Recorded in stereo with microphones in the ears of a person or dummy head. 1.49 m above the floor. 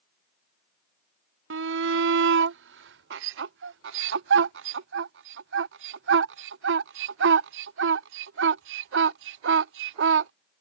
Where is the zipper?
No zipper in this recording.